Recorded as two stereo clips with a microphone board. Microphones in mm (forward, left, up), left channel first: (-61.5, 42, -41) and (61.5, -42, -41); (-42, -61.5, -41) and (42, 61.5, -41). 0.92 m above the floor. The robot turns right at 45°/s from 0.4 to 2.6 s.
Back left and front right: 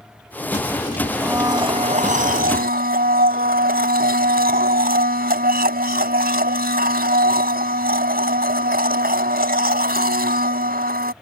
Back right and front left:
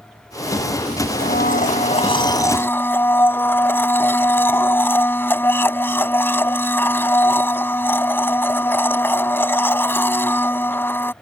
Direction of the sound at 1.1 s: 115° right.